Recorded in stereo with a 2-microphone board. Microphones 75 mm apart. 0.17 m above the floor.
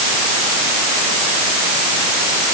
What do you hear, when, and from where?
Only background noise.